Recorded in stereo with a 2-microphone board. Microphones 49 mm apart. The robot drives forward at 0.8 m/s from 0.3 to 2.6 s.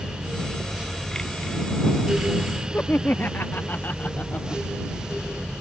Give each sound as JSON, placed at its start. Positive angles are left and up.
{"t": 2.7, "sound": "laughter", "side_deg": 40}